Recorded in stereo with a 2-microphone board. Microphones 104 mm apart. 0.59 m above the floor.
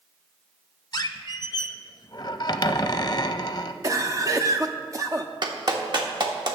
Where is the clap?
45° right (ahead or behind), 1.2 m.